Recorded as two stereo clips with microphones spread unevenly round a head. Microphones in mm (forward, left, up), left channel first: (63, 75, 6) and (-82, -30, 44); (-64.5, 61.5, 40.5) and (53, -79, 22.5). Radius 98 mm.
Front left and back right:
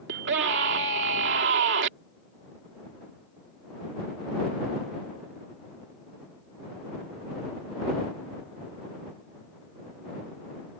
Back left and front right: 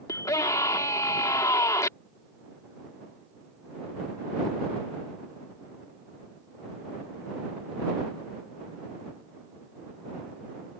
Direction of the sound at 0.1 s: 160° right.